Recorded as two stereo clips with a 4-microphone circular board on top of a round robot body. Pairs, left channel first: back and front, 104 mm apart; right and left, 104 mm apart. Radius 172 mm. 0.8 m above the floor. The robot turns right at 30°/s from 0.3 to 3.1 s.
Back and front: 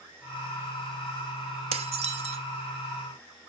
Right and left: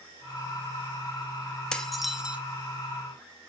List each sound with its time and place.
1.7 s dishes clattering: 5° right, 1.0 m; by 2.4 s 15° left, 1.0 m